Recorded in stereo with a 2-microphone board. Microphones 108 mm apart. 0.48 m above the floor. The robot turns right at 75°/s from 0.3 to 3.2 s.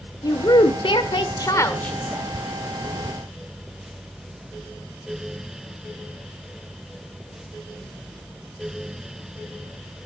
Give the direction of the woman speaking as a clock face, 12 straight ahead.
11 o'clock.